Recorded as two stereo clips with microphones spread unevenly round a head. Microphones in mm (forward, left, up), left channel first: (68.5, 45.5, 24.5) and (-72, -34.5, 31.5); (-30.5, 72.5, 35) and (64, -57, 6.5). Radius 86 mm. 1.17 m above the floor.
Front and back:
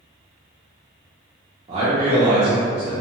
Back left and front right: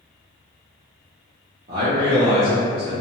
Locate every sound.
1.7 s a man speaking: 95° right, 0.6 m